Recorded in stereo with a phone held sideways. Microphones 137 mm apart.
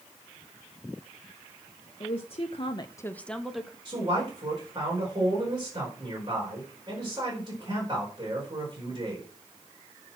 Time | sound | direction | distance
2.0 | a woman speaking | 40° left (ahead or behind) | 1.3 m
3.9 | a man speaking | 35° right (ahead or behind) | 4.5 m